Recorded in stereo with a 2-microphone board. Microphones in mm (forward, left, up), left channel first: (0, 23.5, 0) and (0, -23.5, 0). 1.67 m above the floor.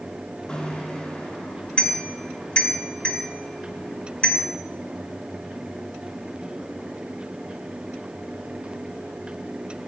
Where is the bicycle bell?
20° left (ahead or behind), 3 m.